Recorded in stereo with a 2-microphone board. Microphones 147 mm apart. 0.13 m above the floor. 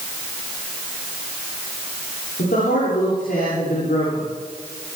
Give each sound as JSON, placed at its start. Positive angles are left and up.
{"t": 2.4, "sound": "a man speaking", "side_deg": 80, "distance_m": 9.5}